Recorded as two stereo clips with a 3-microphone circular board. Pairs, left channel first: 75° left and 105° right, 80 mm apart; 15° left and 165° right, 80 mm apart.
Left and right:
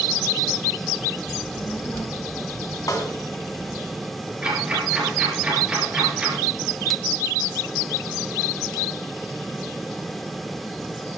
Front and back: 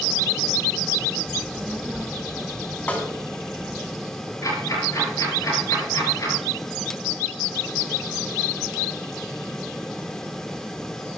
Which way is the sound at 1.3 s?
120° left.